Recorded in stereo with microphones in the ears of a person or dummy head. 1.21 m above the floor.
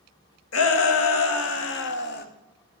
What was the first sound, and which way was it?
A shout, 75° left (ahead or behind).